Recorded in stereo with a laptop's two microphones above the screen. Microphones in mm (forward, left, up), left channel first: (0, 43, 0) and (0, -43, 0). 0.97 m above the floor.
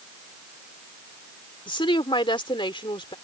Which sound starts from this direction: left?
A woman speaking, at 1.7 s.